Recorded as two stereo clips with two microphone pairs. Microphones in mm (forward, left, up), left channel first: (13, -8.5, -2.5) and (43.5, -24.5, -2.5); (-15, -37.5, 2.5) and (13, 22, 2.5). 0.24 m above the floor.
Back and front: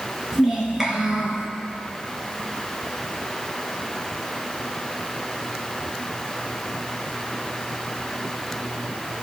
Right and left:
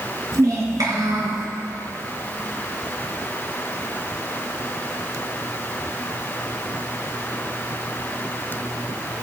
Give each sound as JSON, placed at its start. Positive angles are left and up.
{"t": 0.3, "sound": "a child speaking", "azimuth_deg": 45, "distance_m": 2.5}